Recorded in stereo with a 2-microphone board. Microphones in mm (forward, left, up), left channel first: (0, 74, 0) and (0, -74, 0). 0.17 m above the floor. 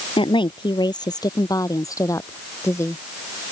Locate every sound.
0.2 s a woman speaking: 35° left (ahead or behind); by 3.0 s 20° left (ahead or behind)